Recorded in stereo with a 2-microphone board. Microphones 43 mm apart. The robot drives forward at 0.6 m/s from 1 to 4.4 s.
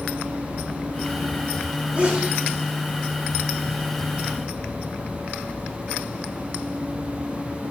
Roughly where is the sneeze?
Right.